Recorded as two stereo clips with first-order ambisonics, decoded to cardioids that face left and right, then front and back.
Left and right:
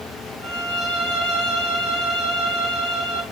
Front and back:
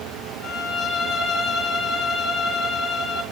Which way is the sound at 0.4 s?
60° left.